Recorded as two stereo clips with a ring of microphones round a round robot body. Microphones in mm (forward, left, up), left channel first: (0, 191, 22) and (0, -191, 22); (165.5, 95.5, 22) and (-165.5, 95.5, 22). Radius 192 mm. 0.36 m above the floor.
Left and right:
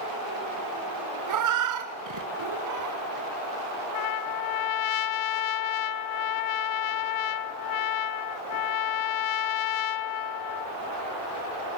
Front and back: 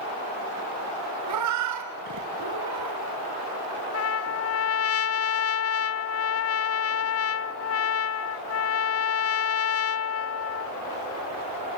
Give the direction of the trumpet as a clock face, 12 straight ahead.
10 o'clock.